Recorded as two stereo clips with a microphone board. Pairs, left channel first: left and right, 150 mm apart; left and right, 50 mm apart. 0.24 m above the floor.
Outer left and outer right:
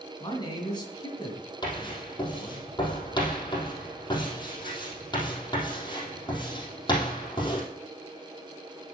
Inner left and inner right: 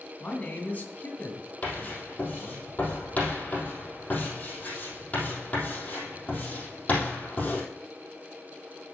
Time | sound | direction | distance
0.2 | a man speaking | 30° left (ahead or behind) | 2.5 m
1.6 | writing | 30° left (ahead or behind) | 3.5 m